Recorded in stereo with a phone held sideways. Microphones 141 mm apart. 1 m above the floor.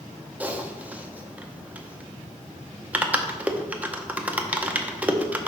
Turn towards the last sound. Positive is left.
turn(degrees=-10)  # may be behind; listen again after turning